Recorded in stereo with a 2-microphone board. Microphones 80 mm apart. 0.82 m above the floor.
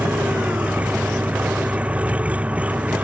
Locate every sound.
0.0 s an engine running: 15° right (ahead or behind)